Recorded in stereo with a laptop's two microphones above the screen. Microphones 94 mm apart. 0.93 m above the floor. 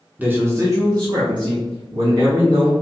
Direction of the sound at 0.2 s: 15° right (ahead or behind).